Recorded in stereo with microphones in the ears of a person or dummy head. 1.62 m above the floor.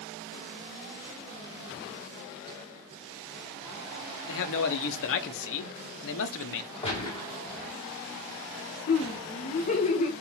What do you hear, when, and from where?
4.3 s a man speaking: 70° left (ahead or behind), 0.7 m
6.8 s a gunshot: 30° left (ahead or behind), 1.5 m
8.9 s laughter: 40° left (ahead or behind), 0.8 m